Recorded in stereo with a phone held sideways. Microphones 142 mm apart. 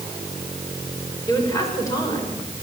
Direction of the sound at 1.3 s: 25° left (ahead or behind).